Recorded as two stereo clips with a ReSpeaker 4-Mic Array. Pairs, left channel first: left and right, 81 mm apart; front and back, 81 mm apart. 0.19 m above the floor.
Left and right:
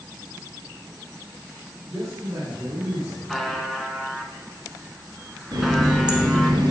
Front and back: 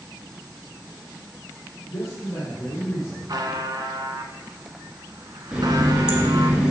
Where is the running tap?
105° right, 1.7 m.